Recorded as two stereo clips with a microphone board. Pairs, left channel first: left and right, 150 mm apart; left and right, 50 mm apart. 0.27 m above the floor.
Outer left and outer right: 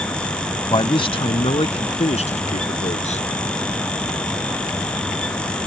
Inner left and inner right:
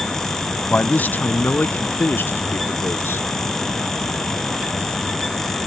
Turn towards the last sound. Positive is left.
turn(degrees=50)  # may be behind; listen again after turning